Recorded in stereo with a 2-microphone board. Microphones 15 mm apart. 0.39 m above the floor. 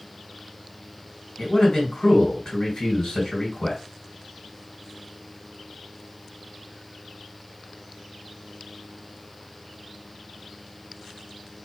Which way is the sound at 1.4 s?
50° left (ahead or behind).